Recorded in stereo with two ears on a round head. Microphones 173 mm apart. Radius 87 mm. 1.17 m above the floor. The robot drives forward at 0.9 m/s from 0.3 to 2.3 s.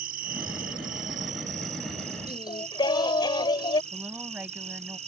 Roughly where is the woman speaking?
Centre.